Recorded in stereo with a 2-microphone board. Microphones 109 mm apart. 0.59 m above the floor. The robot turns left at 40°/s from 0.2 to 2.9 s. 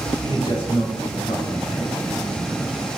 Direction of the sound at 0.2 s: 135° left.